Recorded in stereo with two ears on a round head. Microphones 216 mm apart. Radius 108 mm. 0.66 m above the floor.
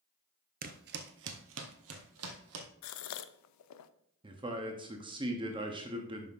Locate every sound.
0.6 s footsteps: 35° right (ahead or behind), 0.7 m; by 2.7 s 70° right (ahead or behind), 1.7 m
2.8 s a gasp: 80° left, 0.5 m
4.2 s a man speaking: 20° right (ahead or behind), 0.8 m